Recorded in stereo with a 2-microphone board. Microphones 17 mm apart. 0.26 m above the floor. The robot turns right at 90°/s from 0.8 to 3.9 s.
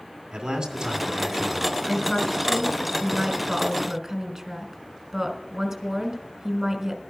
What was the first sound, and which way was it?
A man speaking, 110° right.